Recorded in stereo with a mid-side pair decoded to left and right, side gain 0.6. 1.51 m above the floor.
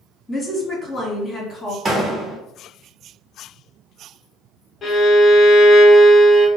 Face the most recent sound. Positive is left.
turn(degrees=40)